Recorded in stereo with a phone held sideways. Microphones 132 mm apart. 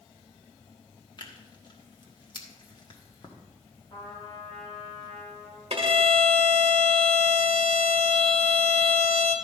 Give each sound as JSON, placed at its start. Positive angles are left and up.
{"t": 1.2, "sound": "tearing paper", "side_deg": 40, "distance_m": 1.3}
{"t": 3.9, "sound": "a trumpet", "side_deg": 40, "distance_m": 3.5}
{"t": 5.7, "sound": "a violin", "side_deg": -50, "distance_m": 1.5}